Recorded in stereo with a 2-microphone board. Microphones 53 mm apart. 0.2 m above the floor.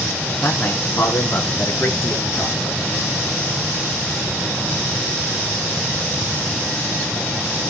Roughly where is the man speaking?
Left.